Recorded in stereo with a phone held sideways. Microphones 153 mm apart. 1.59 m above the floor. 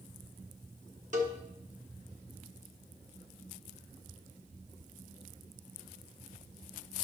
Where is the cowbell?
55° right (ahead or behind), 1.5 m.